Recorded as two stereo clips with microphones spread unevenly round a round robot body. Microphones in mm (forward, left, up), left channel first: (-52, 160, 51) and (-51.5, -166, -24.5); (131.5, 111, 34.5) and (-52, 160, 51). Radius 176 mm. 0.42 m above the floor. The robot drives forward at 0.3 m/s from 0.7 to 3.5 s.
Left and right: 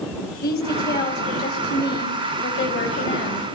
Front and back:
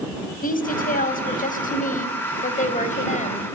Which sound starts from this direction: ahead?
A woman speaking, at 0.4 s.